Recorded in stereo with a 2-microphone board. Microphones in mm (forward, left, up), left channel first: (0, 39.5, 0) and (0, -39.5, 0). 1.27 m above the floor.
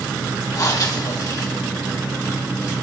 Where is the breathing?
50° left (ahead or behind), 2 m.